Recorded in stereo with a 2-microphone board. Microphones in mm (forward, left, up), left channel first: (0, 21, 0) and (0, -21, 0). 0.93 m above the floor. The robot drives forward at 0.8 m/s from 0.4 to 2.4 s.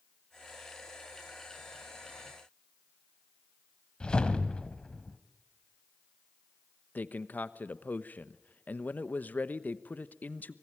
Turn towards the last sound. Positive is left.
turn(degrees=40)  # may be behind; listen again after turning